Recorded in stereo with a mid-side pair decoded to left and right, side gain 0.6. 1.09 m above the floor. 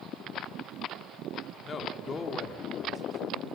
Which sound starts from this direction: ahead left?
A man speaking, at 1.6 s.